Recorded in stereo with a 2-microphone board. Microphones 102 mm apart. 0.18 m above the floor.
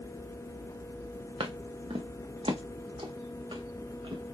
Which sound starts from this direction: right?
Footsteps, at 1.4 s.